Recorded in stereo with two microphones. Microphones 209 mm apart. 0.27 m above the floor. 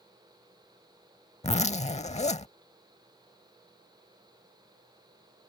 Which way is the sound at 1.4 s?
35° left (ahead or behind).